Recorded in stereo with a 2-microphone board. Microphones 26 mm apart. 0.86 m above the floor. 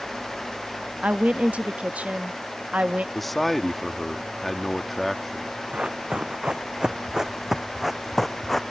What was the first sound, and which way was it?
A woman speaking, 65° right (ahead or behind).